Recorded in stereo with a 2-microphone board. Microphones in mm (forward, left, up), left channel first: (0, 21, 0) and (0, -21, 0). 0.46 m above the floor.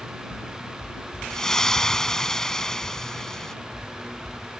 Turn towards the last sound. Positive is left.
turn(degrees=15)  # may be behind; listen again after turning